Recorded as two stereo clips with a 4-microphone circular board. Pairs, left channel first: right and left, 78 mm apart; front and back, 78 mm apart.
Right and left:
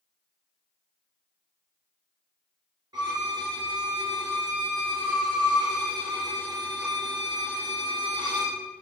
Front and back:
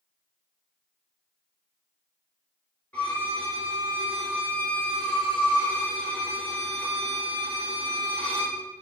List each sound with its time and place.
2.9 s a violin: 70° left, 3.5 m